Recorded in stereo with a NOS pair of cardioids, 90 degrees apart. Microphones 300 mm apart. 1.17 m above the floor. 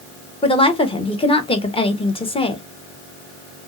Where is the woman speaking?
15° left, 1.0 m.